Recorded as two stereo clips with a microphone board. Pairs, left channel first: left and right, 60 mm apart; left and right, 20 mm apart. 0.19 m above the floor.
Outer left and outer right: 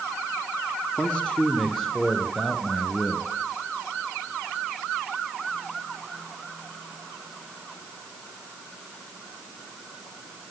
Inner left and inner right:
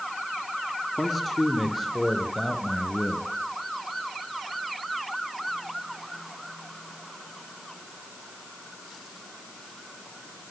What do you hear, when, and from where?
1.0 s a man speaking: 15° left (ahead or behind), 2 m; by 3.3 s centre (ahead or behind), 3 m